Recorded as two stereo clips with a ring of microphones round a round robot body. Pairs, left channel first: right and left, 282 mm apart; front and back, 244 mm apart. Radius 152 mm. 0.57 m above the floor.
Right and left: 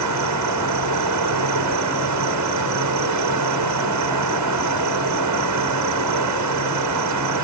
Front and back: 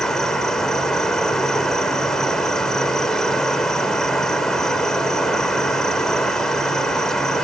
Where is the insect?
90° left.